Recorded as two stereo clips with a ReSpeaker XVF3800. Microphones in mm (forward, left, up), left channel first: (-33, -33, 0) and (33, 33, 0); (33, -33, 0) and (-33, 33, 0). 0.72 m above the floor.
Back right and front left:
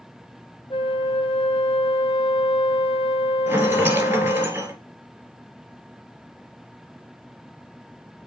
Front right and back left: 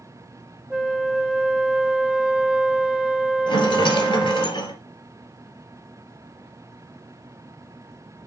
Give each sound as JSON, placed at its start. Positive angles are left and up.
{"t": 0.7, "sound": "a flute", "azimuth_deg": -145, "distance_m": 0.8}
{"t": 3.5, "sound": "a rattle", "azimuth_deg": -20, "distance_m": 2.0}